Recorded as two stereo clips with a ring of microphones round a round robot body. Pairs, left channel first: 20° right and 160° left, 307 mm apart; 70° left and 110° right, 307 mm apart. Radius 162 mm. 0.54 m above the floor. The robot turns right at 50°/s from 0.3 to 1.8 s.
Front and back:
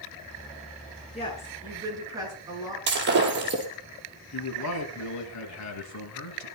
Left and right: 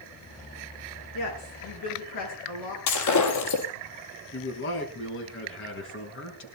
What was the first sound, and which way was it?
A woman speaking, 45° left.